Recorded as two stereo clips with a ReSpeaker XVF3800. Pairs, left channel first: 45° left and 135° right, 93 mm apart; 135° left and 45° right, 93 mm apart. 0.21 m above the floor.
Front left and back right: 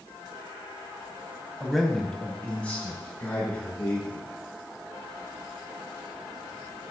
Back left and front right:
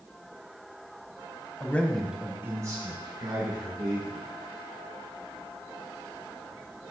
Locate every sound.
1.6 s a man speaking: 140° left, 1.0 m; by 4.3 s 25° right, 2.5 m